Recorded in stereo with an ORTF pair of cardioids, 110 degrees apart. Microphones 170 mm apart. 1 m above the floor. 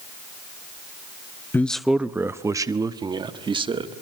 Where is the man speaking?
10° left, 0.6 m; by 3.9 s 30° right, 1.8 m.